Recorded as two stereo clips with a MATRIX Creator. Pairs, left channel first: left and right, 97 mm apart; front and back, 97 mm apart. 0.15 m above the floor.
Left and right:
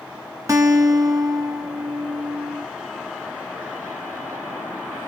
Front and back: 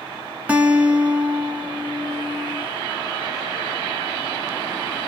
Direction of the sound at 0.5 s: 110° right.